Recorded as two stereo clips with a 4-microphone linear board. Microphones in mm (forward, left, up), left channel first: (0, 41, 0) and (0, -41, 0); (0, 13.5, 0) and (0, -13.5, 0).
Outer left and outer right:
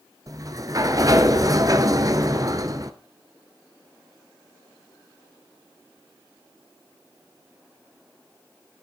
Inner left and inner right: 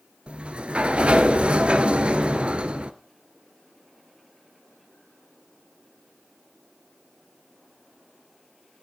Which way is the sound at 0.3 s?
45° right (ahead or behind).